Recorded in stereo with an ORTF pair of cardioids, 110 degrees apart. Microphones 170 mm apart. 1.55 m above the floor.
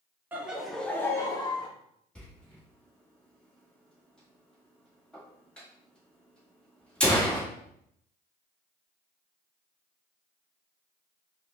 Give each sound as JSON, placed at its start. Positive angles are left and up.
{"t": 0.3, "sound": "laughter", "azimuth_deg": -10, "distance_m": 0.9}
{"t": 2.1, "sound": "a door slam", "azimuth_deg": 5, "distance_m": 1.6}